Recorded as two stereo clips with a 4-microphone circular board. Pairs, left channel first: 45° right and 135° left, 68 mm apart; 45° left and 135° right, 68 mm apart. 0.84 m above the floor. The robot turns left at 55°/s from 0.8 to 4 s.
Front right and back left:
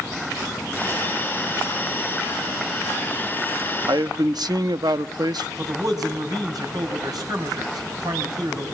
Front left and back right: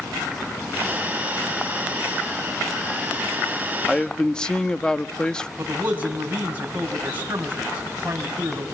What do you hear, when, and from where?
3.9 s a man speaking: 130° left, 0.8 m; by 5.5 s 120° left, 0.8 m
5.6 s a man speaking: 160° left, 5.5 m